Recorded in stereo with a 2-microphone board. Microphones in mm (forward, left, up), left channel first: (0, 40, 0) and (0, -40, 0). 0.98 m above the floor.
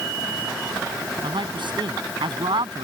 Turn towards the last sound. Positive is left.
turn(degrees=-80)